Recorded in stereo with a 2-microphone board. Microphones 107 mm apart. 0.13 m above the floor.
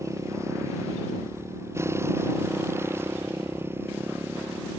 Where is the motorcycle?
25° right (ahead or behind); by 4.8 s 20° right (ahead or behind).